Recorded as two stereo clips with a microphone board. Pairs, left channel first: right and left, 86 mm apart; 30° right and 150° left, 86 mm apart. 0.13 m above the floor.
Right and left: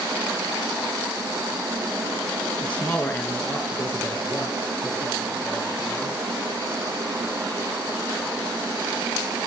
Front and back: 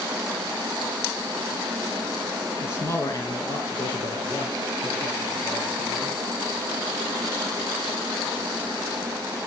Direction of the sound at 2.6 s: 25° right.